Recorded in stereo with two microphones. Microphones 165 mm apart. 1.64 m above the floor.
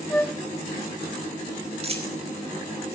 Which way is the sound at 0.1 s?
10° left (ahead or behind).